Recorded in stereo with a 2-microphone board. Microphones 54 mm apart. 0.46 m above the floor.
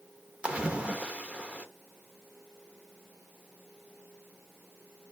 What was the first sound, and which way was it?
A splash, 20° right (ahead or behind).